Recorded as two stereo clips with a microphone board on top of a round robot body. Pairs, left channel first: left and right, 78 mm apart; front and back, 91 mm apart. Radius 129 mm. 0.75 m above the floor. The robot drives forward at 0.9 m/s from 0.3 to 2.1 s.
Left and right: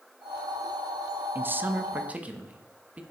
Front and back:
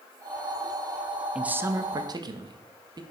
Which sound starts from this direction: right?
A man speaking, at 1.4 s.